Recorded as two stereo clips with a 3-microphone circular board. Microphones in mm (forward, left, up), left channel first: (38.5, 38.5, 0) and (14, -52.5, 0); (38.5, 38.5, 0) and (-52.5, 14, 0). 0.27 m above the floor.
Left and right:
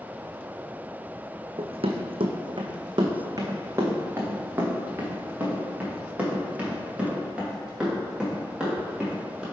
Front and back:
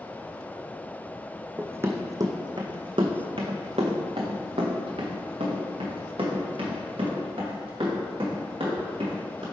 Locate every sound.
1.6 s running footsteps: 95° right, 0.9 m; by 9.4 s 175° left, 4 m